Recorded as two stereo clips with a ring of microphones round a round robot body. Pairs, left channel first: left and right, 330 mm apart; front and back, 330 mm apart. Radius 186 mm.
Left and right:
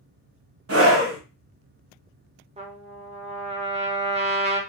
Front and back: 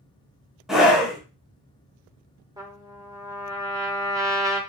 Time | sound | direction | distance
0.7 | a scream | 90° right | 1.1 m
2.6 | a trumpet | 120° right | 0.7 m